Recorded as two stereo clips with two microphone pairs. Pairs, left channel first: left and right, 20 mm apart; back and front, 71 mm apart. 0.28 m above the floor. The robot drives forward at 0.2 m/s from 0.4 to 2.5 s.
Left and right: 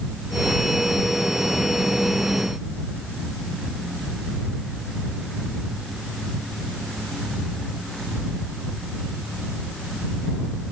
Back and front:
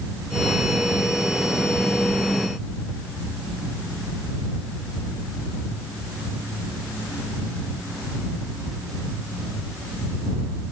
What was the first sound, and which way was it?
Only background noise.